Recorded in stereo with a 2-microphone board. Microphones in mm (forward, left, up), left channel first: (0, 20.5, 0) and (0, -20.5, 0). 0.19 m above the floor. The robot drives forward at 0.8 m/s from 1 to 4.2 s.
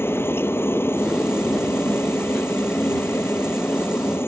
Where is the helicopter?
75° left (ahead or behind); by 4.3 s 70° left (ahead or behind).